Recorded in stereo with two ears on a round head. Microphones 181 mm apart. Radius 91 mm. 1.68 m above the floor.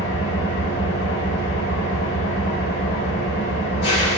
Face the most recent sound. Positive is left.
turn(degrees=60)  # may be behind; listen again after turning